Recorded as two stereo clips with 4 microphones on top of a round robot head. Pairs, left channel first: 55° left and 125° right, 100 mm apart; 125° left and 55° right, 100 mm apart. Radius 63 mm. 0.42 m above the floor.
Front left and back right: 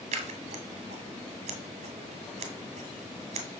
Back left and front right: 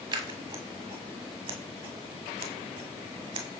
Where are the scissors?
100° right, 1.4 m.